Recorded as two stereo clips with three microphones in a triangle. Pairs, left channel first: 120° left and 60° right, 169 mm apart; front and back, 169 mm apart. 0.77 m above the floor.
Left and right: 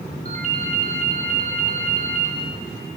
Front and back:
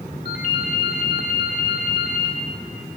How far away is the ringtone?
About 2 m.